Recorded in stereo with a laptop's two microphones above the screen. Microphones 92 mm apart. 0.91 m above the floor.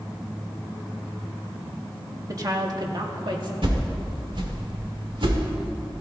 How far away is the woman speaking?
About 1.8 m.